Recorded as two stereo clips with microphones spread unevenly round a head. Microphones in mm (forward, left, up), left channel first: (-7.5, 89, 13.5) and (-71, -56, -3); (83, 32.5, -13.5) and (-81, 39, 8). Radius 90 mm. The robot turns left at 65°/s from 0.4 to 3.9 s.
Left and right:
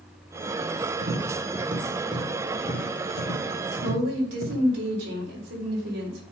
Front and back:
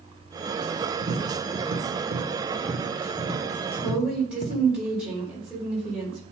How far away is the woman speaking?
About 3.5 m.